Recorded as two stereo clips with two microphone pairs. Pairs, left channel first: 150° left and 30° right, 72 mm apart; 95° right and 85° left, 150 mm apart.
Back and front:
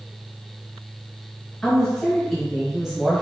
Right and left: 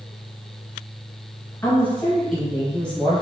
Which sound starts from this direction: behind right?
A woman speaking, at 1.6 s.